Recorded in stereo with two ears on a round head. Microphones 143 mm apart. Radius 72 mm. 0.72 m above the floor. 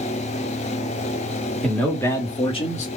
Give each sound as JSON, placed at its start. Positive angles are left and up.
{"t": 1.6, "sound": "a man speaking", "side_deg": 5, "distance_m": 1.5}